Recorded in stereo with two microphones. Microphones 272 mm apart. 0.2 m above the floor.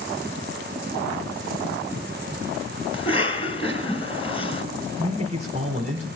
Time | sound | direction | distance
2.9 | a cough | 20° left (ahead or behind) | 2 m
5.0 | a man speaking | 25° right (ahead or behind) | 1.3 m